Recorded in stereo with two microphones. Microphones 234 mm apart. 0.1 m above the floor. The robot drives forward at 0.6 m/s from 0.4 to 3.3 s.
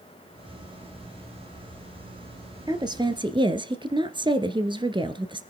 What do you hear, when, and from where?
2.7 s a woman speaking: 20° right (ahead or behind), 1.6 m